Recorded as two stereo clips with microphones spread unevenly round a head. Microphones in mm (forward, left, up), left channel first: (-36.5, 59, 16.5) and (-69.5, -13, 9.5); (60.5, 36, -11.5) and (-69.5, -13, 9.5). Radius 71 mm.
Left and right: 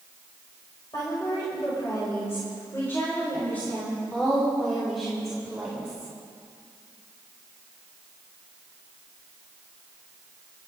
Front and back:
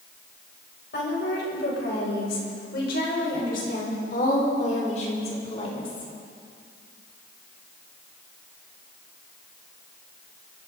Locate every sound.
0.9 s a woman speaking: straight ahead, 7.5 m; by 6.1 s 40° right, 3.5 m